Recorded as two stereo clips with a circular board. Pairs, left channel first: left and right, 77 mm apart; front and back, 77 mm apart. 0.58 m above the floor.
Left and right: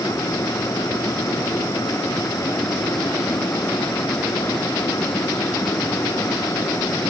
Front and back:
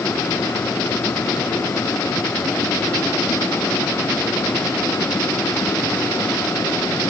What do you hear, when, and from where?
Only background noise.